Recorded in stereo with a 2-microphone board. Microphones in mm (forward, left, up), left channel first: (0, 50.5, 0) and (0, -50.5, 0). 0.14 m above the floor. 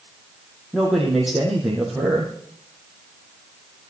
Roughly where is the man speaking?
Centre.